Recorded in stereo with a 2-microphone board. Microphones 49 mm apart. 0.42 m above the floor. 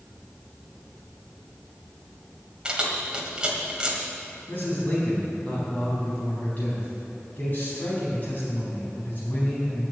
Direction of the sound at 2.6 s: 20° right (ahead or behind).